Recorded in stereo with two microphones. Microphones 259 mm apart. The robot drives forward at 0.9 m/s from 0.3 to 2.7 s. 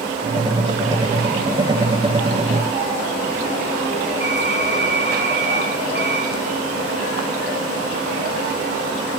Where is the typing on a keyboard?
45° right (ahead or behind), 8.5 m.